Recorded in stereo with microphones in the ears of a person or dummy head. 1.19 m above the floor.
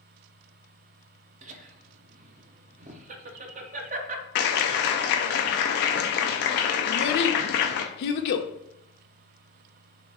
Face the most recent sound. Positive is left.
turn(degrees=60)  # may be behind; listen again after turning